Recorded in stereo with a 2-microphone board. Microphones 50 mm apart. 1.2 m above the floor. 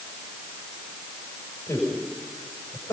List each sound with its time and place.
1.7 s a man speaking: 80° left, 6.5 m